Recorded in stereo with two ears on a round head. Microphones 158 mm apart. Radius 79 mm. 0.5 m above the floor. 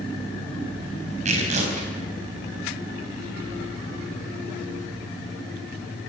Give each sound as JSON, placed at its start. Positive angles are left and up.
{"t": 1.2, "sound": "tearing paper", "side_deg": -40, "distance_m": 4.0}